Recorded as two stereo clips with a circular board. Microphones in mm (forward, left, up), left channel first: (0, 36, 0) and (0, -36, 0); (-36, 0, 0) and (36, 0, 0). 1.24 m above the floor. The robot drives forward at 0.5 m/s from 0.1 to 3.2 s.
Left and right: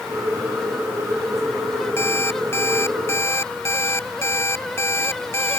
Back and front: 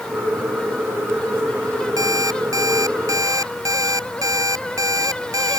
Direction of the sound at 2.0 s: 35° left.